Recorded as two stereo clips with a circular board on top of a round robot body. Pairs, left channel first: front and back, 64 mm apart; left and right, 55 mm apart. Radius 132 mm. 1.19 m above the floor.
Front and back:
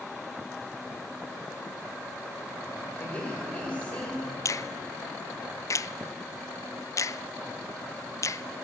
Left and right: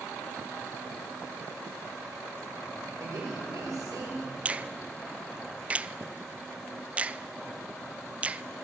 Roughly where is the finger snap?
Ahead right.